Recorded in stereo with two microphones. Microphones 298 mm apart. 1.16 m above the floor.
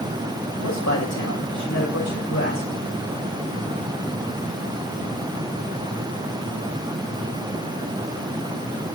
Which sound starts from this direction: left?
A man speaking, at 0.6 s.